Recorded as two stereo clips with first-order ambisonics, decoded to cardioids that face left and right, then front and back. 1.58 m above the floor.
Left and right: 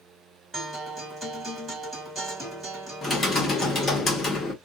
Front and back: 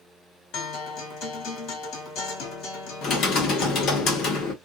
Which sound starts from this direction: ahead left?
Typing on a keyboard, at 3.0 s.